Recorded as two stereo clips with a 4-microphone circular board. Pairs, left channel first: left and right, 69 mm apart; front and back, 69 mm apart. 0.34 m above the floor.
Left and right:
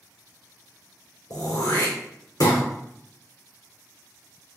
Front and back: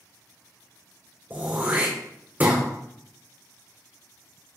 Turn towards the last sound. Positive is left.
turn(degrees=115)